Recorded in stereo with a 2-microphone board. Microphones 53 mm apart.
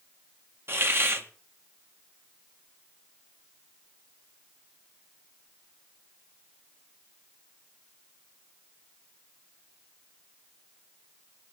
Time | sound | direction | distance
0.7 | a hiss | 50° right (ahead or behind) | 1.7 m